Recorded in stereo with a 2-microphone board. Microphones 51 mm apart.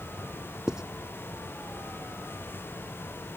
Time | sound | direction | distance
0.7 | writing | 15° right (ahead or behind) | ?